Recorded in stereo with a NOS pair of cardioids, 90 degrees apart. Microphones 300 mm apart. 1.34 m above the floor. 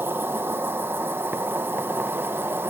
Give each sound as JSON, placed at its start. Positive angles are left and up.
{"t": 0.0, "sound": "an insect", "azimuth_deg": -5}